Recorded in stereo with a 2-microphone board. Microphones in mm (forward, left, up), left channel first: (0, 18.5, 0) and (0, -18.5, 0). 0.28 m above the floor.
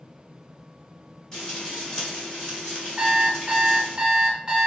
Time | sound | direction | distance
1.3 | frying | 20° left (ahead or behind) | 1.3 m
3.0 | an alarm clock | 20° right (ahead or behind) | 0.7 m